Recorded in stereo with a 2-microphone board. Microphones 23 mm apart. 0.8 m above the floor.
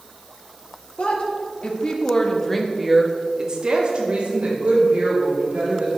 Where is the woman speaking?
55° left (ahead or behind), 2 m; by 6.0 s 70° right (ahead or behind), 4 m.